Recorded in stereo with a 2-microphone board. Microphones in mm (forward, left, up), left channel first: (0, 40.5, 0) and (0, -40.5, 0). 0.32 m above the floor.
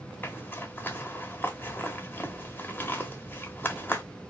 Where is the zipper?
25° left (ahead or behind), 0.8 m.